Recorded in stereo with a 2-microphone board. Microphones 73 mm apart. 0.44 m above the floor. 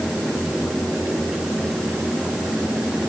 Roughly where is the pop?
No pop in this recording.